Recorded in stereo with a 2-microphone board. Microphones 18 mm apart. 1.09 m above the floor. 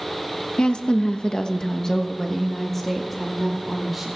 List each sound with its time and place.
0.6 s a woman speaking: 70° left (ahead or behind), 1.2 m; by 4.1 s centre (ahead or behind), 2.5 m